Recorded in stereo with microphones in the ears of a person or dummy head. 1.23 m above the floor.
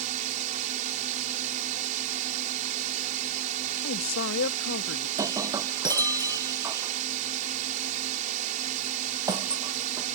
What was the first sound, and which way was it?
A drone, 45° right (ahead or behind).